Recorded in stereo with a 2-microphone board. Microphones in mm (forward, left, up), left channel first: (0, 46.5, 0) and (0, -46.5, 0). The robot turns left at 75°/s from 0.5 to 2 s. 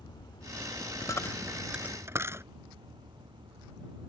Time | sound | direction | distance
0.0 | a vehicle | 50° left | ?
1.0 | a dropped coin | 45° left (ahead or behind) | ?